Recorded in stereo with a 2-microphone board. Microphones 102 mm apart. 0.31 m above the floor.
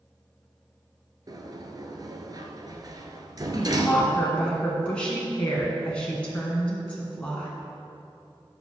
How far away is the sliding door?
About 1.0 m.